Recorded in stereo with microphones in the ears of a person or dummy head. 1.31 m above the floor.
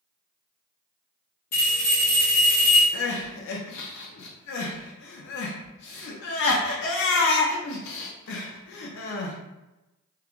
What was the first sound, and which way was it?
A bell, 40° left (ahead or behind).